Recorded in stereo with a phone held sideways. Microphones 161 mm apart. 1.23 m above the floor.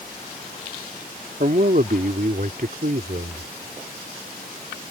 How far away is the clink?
I don't hear a clink.